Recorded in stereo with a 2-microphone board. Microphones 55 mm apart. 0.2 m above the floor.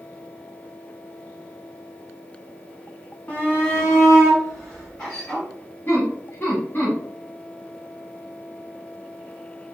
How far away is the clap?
I don't hear a clap.